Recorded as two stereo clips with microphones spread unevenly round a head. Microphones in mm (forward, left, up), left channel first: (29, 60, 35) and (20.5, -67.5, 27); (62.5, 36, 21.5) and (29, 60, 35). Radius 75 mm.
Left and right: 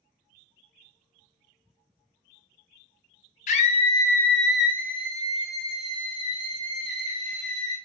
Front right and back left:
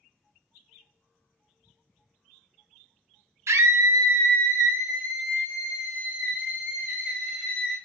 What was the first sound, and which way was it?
A scream, 125° left.